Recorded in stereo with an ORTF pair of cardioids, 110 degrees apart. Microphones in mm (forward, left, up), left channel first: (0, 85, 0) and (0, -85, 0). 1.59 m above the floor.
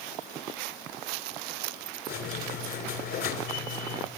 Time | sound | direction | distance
2.1 | a squeak | 65° left | 3 m